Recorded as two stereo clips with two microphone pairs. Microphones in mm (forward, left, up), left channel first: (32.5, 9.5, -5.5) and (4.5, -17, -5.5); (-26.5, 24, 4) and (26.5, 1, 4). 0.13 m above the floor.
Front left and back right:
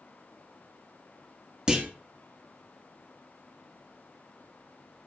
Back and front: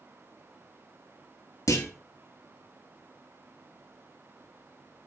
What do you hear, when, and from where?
1.7 s a clunk: 155° left, 1.4 m